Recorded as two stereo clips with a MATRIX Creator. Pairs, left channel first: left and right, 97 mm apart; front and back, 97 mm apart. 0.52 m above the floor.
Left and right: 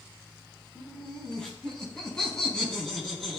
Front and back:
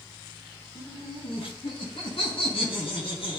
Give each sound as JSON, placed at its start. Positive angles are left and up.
{"t": 0.8, "sound": "laughter", "azimuth_deg": 5, "distance_m": 4.0}